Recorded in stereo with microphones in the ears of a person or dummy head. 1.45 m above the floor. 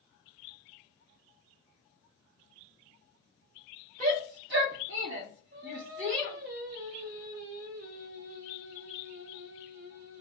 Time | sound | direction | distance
4.0 | a shout | 50° right (ahead or behind) | 0.7 m
5.5 | singing | 65° right (ahead or behind) | 0.6 m